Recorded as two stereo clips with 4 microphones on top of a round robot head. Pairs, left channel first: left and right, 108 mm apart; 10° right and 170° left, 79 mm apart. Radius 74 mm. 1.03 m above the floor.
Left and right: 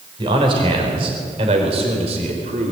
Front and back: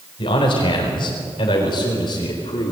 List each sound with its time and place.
0.2 s a man speaking: 35° right, 4.5 m; by 2.7 s 55° right, 4.5 m